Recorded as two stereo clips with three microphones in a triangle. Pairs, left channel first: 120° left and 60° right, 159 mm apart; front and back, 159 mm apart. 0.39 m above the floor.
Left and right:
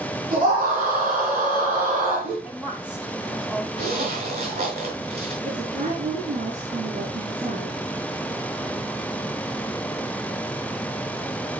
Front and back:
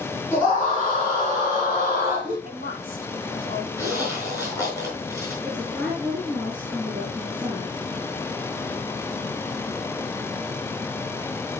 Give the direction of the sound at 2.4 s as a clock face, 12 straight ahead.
11 o'clock.